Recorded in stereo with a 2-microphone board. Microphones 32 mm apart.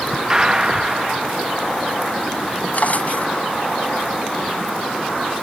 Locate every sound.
0.3 s a gunshot: 20° right (ahead or behind)
2.7 s a drawer: 60° left (ahead or behind)